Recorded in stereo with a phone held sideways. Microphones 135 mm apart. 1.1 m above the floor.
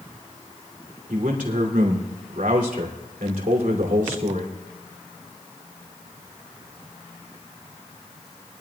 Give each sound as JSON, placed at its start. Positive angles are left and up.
{"t": 1.1, "sound": "a man speaking", "side_deg": -90, "distance_m": 2.5}